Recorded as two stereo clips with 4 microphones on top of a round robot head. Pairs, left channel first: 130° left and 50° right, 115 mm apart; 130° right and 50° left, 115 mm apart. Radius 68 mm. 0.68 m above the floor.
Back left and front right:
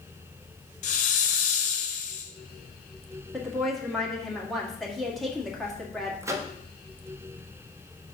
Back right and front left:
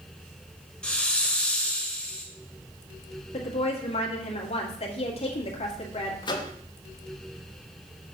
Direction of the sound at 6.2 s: 105° right.